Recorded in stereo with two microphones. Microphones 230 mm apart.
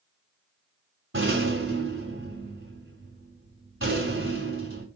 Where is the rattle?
65° right (ahead or behind), 2.5 m.